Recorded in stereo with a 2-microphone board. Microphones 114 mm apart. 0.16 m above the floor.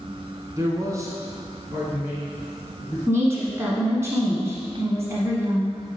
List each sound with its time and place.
0.6 s a man speaking: 30° right (ahead or behind), 1.3 m; by 3.0 s 15° right (ahead or behind), 3 m
3.1 s a woman speaking: 25° right (ahead or behind), 1.2 m